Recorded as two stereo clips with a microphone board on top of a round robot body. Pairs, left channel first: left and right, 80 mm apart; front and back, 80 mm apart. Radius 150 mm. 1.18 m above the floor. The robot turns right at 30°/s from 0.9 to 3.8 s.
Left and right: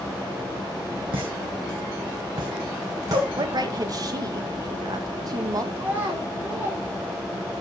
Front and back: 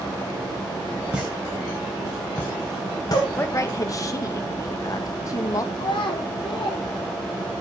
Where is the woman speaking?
60° right, 1.5 m; by 5.7 s 45° right, 1.5 m.